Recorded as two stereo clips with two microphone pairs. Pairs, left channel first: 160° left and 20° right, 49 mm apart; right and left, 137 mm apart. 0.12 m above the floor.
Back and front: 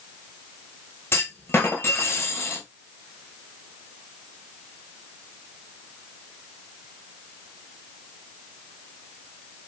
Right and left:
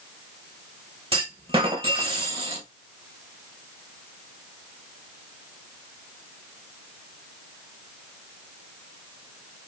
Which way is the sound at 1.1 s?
130° left.